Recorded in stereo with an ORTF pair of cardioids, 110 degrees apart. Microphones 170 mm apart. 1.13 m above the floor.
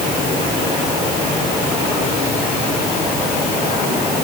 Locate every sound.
Only background noise.